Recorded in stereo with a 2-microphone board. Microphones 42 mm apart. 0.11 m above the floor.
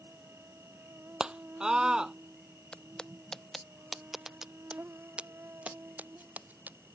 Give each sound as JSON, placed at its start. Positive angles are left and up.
{"t": 0.0, "sound": "an insect", "side_deg": -80}
{"t": 1.2, "sound": "a scream", "side_deg": -15}
{"t": 2.7, "sound": "footsteps", "side_deg": 25}